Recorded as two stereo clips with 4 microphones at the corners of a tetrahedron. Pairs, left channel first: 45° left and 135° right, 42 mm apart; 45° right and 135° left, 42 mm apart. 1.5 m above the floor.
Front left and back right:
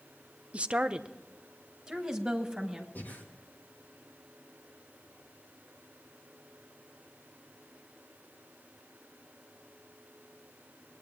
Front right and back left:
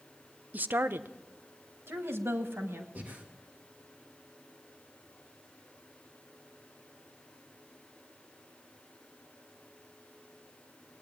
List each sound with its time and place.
0.5 s a woman speaking: 175° left, 0.5 m; by 2.9 s 145° left, 2 m
3.0 s breathing: 90° left, 1.9 m